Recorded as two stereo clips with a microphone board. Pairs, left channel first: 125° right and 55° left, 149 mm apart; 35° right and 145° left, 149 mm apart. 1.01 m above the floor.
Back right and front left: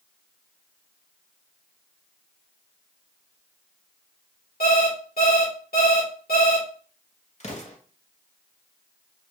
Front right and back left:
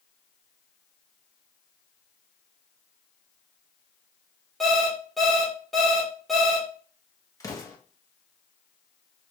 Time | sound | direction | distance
4.6 | an alarm clock | 125° right | 2.0 m
7.4 | an explosion | 100° right | 1.0 m